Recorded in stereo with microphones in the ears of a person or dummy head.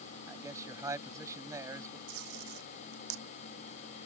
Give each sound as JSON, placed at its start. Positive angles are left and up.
{"t": 0.3, "sound": "a man speaking", "side_deg": -15}
{"t": 2.1, "sound": "tape being pulled", "side_deg": -85}